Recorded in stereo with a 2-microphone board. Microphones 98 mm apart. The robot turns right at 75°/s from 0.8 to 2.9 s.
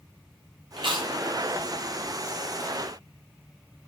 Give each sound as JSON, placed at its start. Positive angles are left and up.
{"t": 0.8, "sound": "chewing", "side_deg": -60, "distance_m": 0.7}